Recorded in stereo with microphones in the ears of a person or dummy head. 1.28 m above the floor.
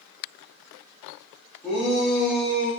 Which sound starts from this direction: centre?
A shout, at 1.6 s.